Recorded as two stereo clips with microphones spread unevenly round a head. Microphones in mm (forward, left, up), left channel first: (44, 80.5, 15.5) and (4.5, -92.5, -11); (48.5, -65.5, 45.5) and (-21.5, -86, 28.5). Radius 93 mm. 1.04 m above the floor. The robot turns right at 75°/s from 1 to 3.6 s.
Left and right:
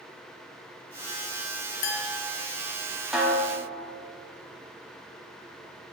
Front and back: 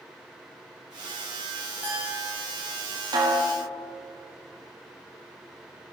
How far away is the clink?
About 1.3 m.